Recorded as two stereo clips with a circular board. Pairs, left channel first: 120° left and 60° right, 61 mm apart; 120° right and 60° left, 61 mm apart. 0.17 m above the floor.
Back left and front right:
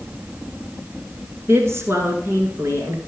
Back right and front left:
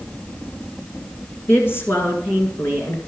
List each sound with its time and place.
1.5 s a woman speaking: 90° right, 2 m